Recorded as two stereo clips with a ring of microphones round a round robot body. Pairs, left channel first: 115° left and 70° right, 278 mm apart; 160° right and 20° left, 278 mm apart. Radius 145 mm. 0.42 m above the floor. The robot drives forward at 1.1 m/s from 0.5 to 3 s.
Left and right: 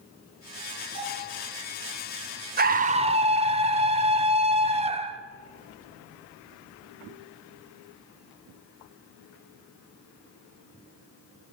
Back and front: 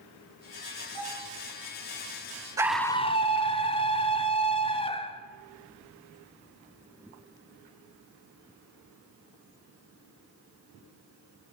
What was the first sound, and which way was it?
A bell, 85° right.